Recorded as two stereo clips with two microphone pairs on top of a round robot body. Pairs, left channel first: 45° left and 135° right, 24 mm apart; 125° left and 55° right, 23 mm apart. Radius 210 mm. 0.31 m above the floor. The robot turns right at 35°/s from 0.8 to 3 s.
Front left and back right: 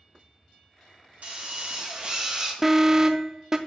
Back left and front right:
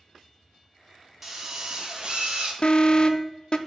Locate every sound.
1.2 s a drill: 120° right, 1.1 m; by 2.5 s 75° right, 1.1 m
2.6 s an alarm: 150° left, 0.6 m; by 3.6 s 165° left, 0.6 m